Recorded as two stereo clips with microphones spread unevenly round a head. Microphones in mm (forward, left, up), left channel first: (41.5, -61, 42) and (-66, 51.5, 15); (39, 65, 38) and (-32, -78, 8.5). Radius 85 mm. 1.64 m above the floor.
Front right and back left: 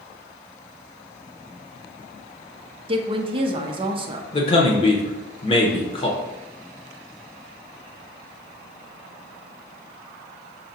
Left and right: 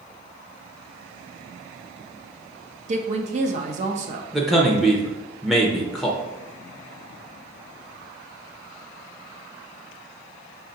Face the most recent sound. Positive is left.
turn(degrees=-15)